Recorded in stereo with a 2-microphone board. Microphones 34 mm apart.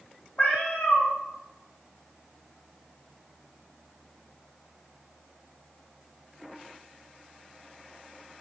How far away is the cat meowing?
About 0.6 m.